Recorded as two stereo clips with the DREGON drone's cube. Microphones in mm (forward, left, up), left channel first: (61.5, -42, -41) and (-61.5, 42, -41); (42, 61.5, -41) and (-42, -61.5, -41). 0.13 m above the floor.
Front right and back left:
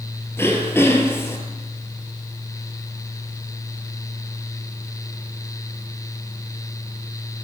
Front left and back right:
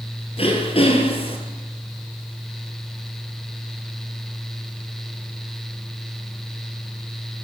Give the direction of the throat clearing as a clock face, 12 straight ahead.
11 o'clock.